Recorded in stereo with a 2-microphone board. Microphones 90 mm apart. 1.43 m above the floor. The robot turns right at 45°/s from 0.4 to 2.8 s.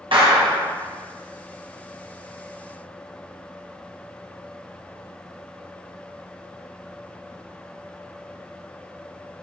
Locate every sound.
0.1 s a clap: 75° right (ahead or behind), 0.9 m; by 0.7 s 70° right (ahead or behind), 0.9 m